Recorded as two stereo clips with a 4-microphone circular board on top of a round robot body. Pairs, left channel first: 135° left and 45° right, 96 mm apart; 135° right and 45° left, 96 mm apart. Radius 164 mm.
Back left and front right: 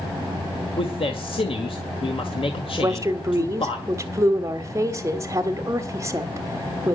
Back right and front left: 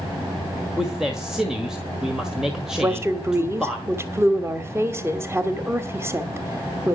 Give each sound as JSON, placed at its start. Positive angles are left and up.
{"t": 0.8, "sound": "a man speaking", "azimuth_deg": 130, "distance_m": 1.9}
{"t": 2.8, "sound": "a woman speaking", "azimuth_deg": -5, "distance_m": 1.6}